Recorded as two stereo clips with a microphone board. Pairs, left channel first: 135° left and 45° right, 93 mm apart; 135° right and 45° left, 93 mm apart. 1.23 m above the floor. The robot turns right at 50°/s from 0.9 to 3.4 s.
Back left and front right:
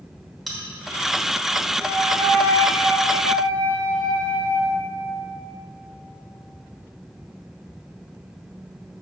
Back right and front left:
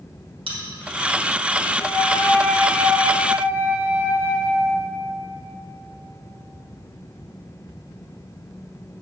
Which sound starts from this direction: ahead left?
A bell, at 0.5 s.